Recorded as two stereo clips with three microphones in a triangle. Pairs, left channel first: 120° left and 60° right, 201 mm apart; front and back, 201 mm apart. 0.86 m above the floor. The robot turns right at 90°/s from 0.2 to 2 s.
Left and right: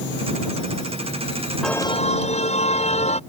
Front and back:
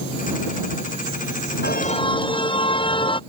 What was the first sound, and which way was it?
A car horn, 30° left.